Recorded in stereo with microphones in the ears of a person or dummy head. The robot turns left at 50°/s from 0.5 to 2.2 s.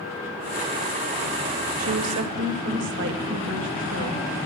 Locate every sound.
1.8 s a woman speaking: 80° right, 1.9 m; by 4.5 s 60° right (ahead or behind), 1.9 m